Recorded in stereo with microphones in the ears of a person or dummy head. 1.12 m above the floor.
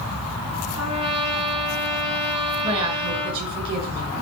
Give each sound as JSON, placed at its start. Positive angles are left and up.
{"t": 0.8, "sound": "a trumpet", "side_deg": -25, "distance_m": 6.5}
{"t": 2.6, "sound": "a woman speaking", "side_deg": -25, "distance_m": 8.0}